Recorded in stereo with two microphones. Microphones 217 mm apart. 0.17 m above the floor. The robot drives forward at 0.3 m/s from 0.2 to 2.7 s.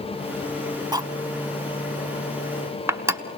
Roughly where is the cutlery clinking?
Centre.